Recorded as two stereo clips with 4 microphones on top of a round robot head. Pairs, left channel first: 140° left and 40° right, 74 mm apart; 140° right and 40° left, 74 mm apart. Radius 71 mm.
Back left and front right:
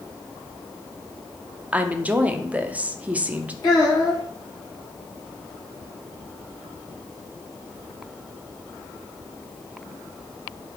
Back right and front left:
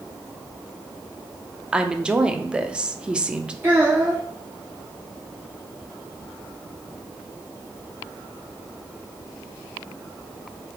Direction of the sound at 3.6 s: 105° left.